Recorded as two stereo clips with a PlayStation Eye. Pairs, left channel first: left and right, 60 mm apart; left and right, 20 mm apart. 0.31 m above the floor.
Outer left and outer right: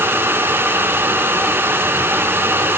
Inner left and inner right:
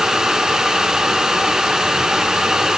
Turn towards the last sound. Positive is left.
No sound to turn to.